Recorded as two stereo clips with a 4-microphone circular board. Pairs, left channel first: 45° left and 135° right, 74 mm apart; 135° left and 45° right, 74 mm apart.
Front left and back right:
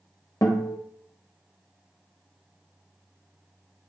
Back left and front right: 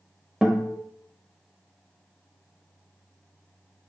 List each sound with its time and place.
0.4 s a guitar: 40° left, 0.8 m